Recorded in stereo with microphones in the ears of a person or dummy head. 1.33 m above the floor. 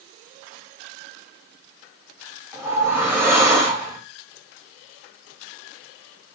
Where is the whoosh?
10° right (ahead or behind), 0.6 m.